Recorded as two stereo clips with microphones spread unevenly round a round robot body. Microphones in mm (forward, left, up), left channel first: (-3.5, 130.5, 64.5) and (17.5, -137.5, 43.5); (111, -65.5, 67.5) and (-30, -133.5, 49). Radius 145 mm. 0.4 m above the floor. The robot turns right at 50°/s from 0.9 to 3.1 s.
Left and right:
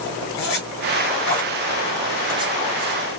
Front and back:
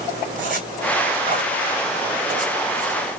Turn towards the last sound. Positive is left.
turn(degrees=-120)